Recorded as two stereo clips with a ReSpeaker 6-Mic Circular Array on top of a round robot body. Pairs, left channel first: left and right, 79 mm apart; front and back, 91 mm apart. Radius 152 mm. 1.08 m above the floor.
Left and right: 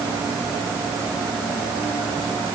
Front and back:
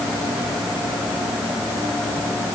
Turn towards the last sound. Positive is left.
No sound to turn to.